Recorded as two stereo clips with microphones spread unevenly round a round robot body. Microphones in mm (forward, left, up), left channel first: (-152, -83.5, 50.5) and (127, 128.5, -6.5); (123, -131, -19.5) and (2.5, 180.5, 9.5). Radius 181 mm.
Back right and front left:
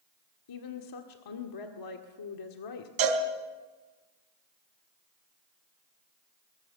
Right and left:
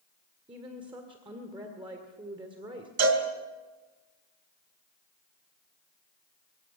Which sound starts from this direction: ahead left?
A cowbell, at 3.0 s.